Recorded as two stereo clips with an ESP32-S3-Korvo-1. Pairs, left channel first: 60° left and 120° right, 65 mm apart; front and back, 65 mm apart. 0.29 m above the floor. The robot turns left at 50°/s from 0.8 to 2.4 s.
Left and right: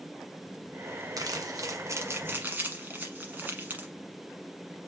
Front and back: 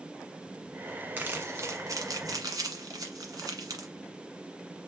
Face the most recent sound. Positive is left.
turn(degrees=180)